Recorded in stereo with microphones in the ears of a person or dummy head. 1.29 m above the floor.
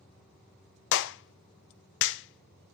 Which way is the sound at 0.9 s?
70° left (ahead or behind).